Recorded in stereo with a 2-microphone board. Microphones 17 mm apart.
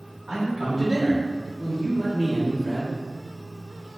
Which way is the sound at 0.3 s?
60° right (ahead or behind).